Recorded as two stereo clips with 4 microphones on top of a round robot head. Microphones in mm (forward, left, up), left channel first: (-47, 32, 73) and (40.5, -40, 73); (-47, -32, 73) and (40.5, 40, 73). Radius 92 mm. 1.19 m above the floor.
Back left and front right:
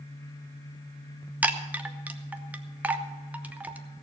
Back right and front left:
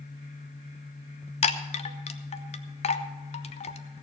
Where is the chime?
115° right, 0.9 m.